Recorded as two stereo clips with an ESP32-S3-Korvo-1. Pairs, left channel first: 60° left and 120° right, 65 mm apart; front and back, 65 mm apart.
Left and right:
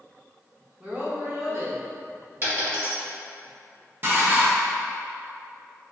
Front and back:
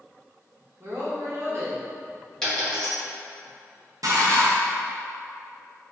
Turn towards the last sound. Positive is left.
turn(degrees=-170)